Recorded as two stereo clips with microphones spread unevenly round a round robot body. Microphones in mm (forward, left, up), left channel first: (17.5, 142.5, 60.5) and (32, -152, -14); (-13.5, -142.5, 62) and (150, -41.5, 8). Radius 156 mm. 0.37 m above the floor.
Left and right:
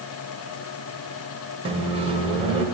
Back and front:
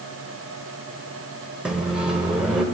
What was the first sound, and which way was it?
A microwave, 40° right.